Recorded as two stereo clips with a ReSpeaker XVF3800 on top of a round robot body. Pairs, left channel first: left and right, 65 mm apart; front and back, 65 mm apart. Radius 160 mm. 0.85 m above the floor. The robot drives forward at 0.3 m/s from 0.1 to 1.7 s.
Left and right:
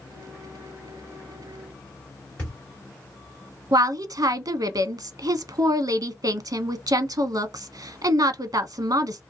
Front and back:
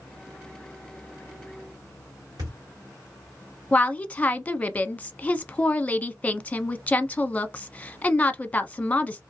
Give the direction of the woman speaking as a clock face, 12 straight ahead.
2 o'clock.